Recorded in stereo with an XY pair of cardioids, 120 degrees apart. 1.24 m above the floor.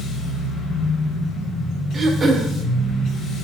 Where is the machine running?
65° left, 0.9 m.